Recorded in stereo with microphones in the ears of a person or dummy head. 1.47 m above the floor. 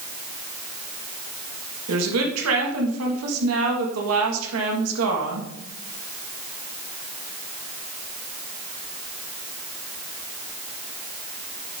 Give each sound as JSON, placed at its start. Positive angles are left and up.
{"t": 1.9, "sound": "a woman speaking", "side_deg": -85, "distance_m": 2.0}